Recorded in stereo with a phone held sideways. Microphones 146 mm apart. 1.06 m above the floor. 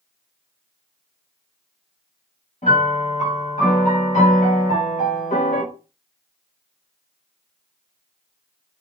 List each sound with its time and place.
2.6 s a piano: 55° left (ahead or behind), 1.5 m